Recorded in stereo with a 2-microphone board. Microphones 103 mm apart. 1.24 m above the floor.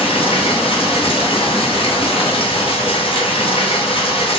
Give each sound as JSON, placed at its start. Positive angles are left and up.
{"t": 0.0, "sound": "running water", "side_deg": 65, "distance_m": 0.9}